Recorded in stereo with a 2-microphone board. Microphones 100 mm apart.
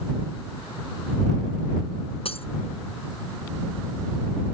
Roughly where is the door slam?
No door slam in this recording.